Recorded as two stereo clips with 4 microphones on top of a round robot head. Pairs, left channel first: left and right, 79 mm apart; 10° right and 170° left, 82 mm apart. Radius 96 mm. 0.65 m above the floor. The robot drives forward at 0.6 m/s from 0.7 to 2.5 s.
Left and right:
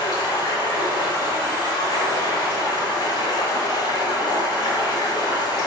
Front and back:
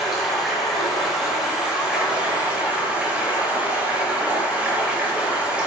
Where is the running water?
80° left, 4.5 m; by 5.7 s 95° left, 4.5 m.